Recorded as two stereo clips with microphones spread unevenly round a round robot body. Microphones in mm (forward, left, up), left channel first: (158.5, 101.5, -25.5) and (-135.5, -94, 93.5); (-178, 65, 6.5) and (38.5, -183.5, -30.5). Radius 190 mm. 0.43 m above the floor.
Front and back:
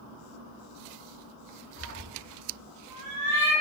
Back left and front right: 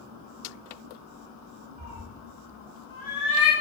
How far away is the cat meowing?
About 0.9 m.